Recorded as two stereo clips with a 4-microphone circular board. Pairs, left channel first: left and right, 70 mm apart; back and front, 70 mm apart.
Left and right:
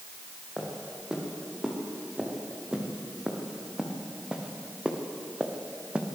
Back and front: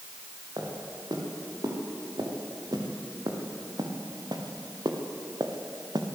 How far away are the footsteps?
About 7.5 m.